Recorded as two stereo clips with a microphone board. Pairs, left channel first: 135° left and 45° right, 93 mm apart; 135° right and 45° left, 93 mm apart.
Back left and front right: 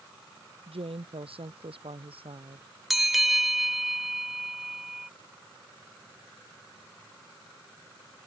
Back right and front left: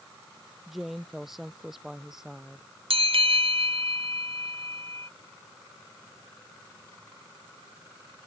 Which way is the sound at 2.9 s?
45° left.